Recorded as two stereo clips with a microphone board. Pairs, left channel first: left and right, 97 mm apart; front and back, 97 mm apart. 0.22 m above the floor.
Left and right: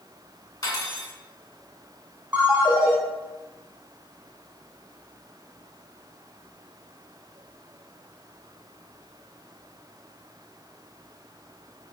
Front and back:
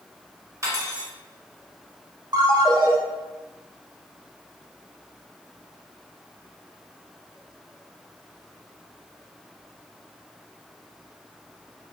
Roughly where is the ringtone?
Behind.